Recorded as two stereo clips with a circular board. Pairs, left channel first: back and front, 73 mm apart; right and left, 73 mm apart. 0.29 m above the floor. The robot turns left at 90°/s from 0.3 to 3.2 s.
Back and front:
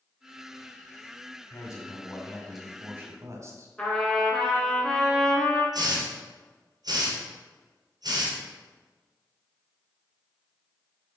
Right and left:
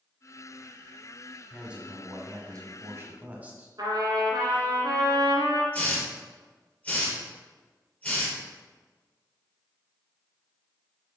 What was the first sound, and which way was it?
A man speaking, straight behind.